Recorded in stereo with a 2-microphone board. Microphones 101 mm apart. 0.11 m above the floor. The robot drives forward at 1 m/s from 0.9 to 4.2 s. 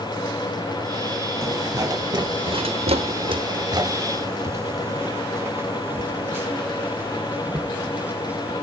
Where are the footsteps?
25° right (ahead or behind), 2.5 m; by 8.5 s 10° right (ahead or behind), 4.5 m.